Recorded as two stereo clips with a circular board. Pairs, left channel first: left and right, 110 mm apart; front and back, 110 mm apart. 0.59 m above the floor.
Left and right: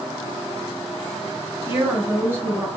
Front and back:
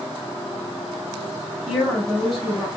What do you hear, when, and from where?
1.7 s a woman speaking: 90° right, 1.1 m